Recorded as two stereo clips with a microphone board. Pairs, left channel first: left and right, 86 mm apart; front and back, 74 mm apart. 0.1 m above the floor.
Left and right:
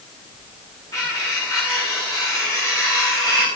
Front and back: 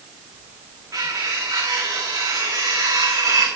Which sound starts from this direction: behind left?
Cutlery clinking, at 0.9 s.